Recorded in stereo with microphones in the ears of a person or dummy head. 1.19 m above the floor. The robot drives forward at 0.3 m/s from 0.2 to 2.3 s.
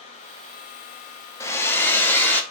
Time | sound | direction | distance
1.4 | a hair dryer | 15° left (ahead or behind) | 0.6 m